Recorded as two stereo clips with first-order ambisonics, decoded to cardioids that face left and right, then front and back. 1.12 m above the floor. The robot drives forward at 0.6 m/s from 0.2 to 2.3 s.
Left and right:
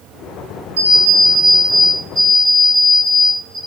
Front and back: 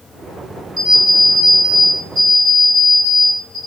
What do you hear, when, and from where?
0.8 s an alarm clock: 105° right, 1.3 m; by 3.6 s 135° right, 1.8 m